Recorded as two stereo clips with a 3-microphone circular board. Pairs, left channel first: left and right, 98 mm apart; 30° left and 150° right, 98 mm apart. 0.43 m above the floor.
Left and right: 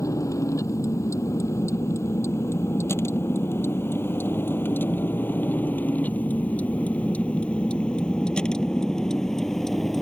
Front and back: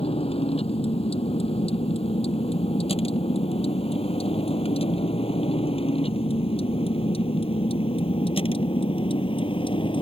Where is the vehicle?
35° left; by 10.0 s 5° left.